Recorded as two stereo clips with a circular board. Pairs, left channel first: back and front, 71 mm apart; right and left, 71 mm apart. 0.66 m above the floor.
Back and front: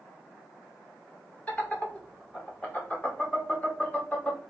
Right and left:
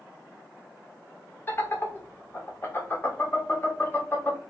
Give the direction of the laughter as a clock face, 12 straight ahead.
4 o'clock.